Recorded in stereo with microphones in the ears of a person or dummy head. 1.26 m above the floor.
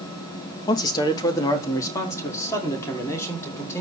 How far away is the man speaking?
About 1.2 m.